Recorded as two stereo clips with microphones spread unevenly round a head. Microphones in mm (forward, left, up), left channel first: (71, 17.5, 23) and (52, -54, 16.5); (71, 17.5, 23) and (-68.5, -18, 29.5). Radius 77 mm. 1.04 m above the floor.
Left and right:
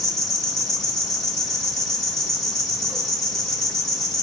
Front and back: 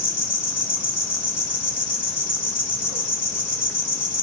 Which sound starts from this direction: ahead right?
An insect, at 0.0 s.